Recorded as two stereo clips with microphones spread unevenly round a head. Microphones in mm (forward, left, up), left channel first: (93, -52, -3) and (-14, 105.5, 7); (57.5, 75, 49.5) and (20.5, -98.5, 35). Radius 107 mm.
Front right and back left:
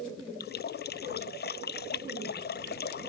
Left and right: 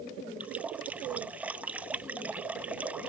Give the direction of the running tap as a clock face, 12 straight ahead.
1 o'clock.